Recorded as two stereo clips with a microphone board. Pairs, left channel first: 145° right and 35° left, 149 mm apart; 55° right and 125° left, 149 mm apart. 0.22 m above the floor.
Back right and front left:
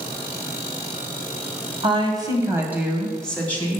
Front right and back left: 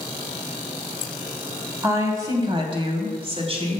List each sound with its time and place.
1.8 s a woman speaking: 60° left, 2 m; by 3.8 s 150° left, 2 m